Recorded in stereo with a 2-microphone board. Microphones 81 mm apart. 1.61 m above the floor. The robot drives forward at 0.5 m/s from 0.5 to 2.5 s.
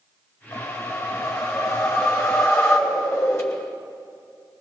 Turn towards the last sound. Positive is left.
turn(degrees=35)  # may be behind; listen again after turning